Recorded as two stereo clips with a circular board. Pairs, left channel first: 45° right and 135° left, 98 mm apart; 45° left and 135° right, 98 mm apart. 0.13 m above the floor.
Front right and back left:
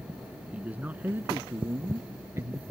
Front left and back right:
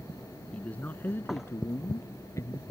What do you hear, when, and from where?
0.5 s a man speaking: 90° left; by 2.7 s 85° left